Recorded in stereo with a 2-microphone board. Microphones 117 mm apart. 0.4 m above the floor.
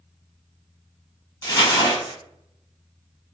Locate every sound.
1.4 s crumpling: 30° left (ahead or behind), 1.0 m